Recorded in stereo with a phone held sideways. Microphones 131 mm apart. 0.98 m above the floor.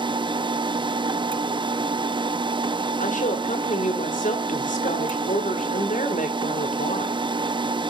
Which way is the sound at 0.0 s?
35° right (ahead or behind).